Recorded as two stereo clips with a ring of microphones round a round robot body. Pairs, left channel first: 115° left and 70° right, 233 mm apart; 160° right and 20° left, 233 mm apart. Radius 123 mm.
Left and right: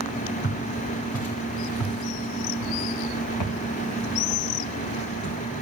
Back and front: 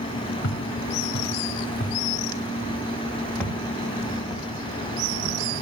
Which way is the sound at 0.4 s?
155° left.